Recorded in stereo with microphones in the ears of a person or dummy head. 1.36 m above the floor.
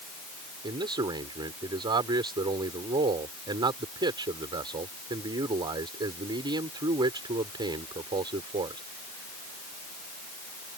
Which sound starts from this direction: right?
A man speaking, at 0.6 s.